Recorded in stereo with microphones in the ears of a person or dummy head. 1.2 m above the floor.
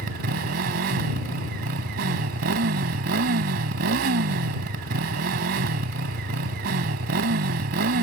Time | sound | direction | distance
0.0 | a motorcycle | 55° right (ahead or behind) | ?